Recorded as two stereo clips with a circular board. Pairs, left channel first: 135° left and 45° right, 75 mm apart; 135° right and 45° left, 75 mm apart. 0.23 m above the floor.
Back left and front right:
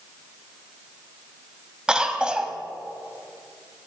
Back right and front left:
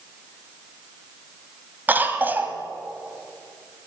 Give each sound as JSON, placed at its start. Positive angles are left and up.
{"t": 1.9, "sound": "a cough", "azimuth_deg": 20, "distance_m": 1.4}